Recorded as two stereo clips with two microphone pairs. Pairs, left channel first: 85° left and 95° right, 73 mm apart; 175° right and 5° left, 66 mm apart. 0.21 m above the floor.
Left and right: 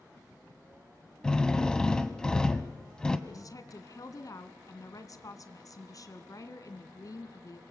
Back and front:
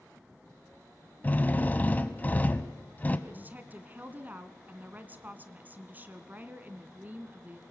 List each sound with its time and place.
1.2 s a drill: 155° left, 1.2 m
3.3 s a woman speaking: 60° left, 1.8 m